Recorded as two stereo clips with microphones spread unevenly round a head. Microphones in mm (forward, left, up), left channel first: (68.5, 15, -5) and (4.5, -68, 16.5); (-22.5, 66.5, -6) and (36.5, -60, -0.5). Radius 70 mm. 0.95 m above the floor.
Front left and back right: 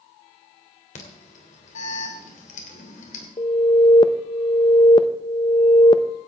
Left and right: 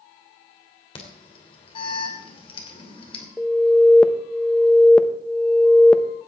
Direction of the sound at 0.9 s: 60° left.